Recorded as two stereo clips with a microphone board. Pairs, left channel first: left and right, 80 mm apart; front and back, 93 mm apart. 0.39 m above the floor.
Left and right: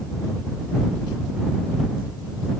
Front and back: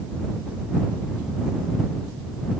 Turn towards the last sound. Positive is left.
No sound to turn to.